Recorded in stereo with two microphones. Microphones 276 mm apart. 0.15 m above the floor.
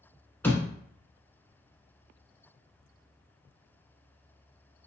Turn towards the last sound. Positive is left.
turn(degrees=5)  # may be behind; listen again after turning